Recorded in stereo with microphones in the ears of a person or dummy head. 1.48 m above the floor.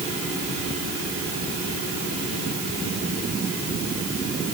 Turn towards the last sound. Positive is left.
No sound to turn to.